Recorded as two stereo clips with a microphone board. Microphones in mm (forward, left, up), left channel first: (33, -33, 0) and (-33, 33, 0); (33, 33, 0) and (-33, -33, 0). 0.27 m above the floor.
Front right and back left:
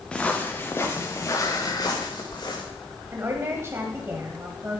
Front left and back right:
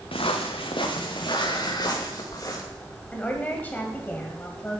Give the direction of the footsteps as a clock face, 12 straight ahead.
11 o'clock.